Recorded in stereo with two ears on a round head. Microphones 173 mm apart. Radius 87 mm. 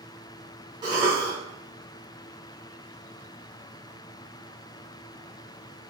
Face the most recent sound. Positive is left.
turn(degrees=-20)  # may be behind; listen again after turning